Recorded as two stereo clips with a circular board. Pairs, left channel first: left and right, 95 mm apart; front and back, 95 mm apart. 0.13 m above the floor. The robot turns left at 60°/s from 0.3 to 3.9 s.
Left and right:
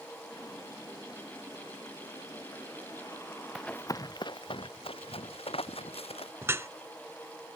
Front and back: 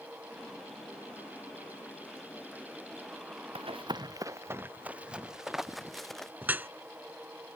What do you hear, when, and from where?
3.5 s running footsteps: straight behind; by 6.3 s 85° left
6.4 s dripping: 125° right